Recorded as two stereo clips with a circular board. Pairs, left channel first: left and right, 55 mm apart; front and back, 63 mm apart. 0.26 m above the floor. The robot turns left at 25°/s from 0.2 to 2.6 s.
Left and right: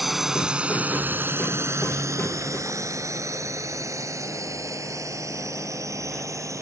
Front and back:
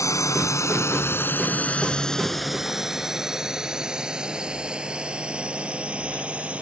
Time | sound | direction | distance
0.0 | a drone | 5° right | ?